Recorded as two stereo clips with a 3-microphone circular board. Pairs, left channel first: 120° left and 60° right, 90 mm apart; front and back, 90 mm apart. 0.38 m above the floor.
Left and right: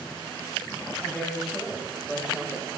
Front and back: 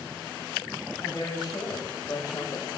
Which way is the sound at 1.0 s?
30° left.